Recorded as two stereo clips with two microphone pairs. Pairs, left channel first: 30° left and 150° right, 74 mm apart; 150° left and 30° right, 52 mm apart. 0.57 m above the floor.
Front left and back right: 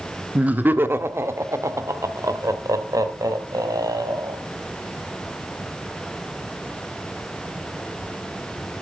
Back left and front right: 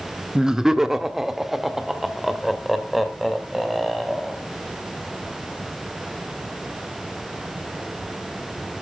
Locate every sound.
0.3 s laughter: 100° right, 1.0 m; by 4.4 s 120° right, 3.5 m